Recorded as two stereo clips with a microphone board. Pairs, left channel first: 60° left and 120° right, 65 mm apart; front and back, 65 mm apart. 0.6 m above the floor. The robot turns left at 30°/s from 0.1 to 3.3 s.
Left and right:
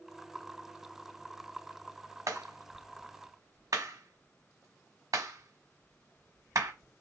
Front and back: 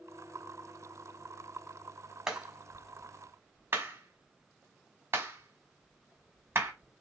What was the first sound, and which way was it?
A clap, 100° right.